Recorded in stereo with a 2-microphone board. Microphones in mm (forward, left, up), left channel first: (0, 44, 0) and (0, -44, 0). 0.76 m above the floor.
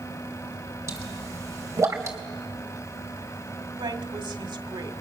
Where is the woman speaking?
65° right (ahead or behind), 1.9 m.